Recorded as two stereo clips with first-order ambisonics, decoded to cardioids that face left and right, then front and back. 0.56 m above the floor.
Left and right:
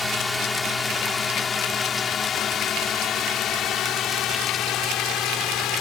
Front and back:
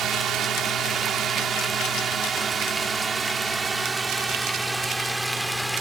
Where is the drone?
170° left; by 5.8 s 95° left.